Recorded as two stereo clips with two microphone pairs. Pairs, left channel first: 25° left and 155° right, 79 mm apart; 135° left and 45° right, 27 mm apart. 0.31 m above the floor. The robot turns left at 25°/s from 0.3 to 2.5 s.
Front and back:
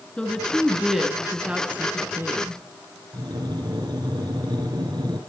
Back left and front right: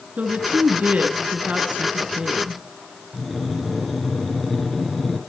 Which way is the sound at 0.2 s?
50° right.